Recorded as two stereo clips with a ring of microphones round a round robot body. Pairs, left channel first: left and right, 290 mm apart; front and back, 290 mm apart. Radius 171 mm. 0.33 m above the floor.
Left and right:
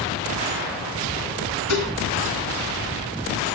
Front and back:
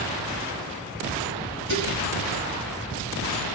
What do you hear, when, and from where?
1.7 s dishes clattering: 125° left, 3 m